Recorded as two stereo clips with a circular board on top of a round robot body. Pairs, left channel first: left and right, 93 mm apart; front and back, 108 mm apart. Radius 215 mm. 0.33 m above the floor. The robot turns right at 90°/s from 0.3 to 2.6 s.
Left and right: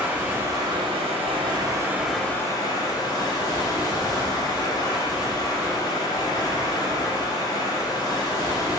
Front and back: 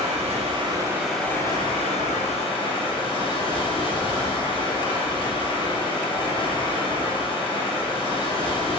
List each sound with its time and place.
0.0 s running water: 165° right, 1.3 m; by 8.8 s 40° left, 1.3 m